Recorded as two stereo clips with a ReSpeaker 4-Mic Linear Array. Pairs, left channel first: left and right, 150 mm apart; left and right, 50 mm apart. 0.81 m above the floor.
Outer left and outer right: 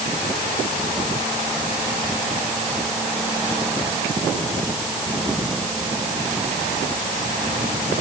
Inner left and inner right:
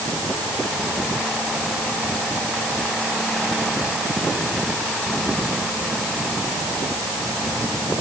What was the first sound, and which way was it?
Only background noise.